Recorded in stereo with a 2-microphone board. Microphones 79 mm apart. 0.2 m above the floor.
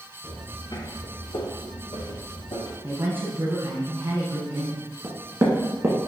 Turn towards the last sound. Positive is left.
turn(degrees=-35)  # may be behind; listen again after turning